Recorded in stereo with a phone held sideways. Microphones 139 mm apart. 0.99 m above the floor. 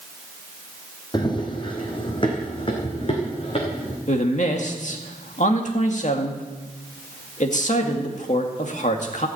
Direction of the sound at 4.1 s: 60° left (ahead or behind).